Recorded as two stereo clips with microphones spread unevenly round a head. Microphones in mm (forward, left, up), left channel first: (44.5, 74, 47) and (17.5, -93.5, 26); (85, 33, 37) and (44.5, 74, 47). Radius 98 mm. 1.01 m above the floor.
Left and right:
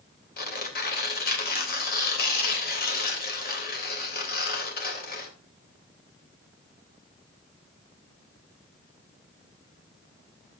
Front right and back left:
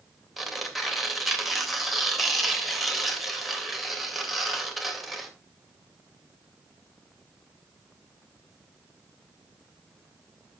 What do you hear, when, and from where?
0.4 s tearing paper: 50° left, 3 m